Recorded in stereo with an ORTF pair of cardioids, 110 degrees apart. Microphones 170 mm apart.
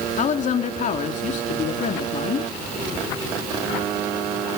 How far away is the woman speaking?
About 3 m.